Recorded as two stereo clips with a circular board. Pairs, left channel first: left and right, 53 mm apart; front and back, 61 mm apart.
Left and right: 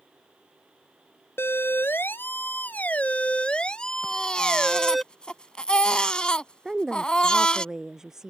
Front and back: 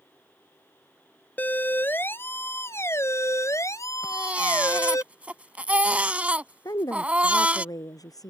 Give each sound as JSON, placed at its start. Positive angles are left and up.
{"t": 1.4, "sound": "a siren", "azimuth_deg": 60}
{"t": 4.0, "sound": "a baby crying", "azimuth_deg": 140}
{"t": 6.7, "sound": "a woman speaking", "azimuth_deg": -10}